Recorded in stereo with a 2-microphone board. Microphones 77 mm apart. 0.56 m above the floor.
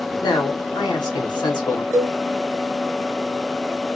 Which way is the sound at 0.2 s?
65° left (ahead or behind).